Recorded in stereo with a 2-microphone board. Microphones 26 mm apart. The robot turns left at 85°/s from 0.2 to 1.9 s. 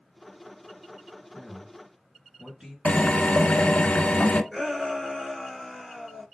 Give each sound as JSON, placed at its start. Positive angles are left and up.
{"t": 1.3, "sound": "a man speaking", "side_deg": 0, "distance_m": 3.0}
{"t": 2.9, "sound": "a drill", "side_deg": 60, "distance_m": 0.9}
{"t": 4.5, "sound": "a shout", "side_deg": -20, "distance_m": 1.9}